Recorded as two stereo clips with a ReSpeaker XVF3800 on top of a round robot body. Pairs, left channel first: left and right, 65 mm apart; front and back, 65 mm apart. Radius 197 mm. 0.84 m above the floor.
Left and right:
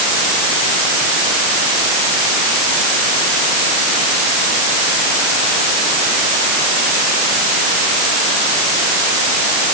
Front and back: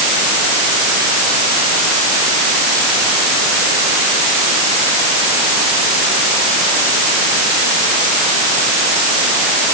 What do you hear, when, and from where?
Only background noise.